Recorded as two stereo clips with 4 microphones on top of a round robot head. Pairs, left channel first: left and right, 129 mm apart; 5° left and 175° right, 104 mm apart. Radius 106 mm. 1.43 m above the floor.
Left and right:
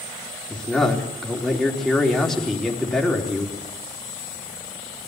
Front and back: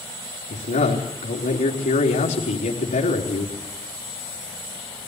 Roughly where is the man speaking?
Ahead.